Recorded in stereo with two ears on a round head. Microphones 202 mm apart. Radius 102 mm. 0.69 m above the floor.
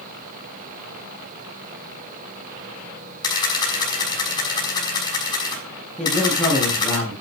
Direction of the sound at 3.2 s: 20° left (ahead or behind).